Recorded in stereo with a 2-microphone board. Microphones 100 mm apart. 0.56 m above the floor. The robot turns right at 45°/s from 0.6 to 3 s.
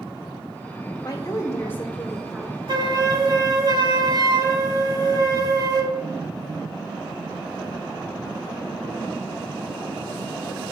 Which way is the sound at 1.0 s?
125° left.